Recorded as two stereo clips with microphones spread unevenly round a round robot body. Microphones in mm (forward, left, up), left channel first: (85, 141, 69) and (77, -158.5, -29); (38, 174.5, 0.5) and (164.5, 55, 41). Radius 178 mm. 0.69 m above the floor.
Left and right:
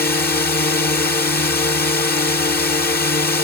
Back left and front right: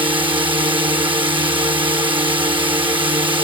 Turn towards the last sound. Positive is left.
turn(degrees=20)